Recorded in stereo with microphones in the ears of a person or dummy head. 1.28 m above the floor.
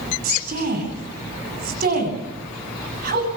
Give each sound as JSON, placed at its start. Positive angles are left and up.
{"t": 0.2, "sound": "a woman speaking", "side_deg": -50, "distance_m": 9.0}